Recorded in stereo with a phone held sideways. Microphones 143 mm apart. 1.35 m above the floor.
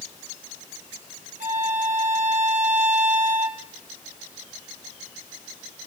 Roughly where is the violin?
Right.